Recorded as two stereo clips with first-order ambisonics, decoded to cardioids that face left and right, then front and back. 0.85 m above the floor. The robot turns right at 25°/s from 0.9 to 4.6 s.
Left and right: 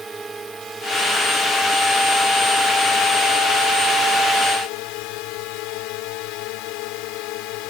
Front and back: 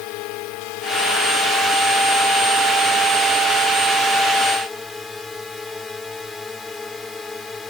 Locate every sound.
0.0 s a drone: 15° right; by 7.7 s 80° left